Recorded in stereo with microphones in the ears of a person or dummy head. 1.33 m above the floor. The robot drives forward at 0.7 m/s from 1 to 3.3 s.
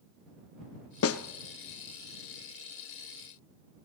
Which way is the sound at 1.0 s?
70° left (ahead or behind).